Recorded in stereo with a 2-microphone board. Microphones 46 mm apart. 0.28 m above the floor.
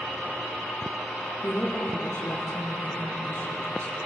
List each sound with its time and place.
1.4 s a woman speaking: 45° left (ahead or behind), 5.5 m